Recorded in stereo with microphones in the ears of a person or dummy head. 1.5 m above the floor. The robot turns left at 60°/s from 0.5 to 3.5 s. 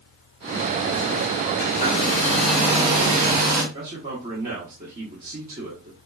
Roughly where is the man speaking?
Right.